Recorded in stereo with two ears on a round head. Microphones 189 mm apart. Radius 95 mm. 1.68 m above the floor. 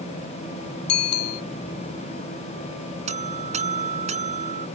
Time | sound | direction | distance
0.9 | a bicycle bell | 65° left (ahead or behind) | ?
3.1 | a buzzer | 35° right (ahead or behind) | ?